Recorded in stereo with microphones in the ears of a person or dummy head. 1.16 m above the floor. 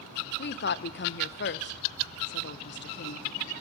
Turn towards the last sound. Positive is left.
turn(degrees=55)  # may be behind; listen again after turning